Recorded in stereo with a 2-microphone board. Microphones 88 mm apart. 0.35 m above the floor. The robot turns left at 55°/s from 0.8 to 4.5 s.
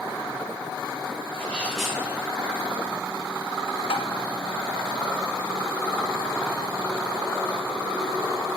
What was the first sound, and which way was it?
A sneeze, 25° left.